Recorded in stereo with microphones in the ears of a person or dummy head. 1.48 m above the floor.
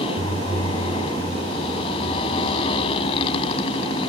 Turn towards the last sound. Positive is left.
turn(degrees=35)  # may be behind; listen again after turning